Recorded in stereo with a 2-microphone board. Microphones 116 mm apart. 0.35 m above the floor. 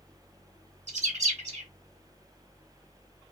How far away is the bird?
About 0.8 m.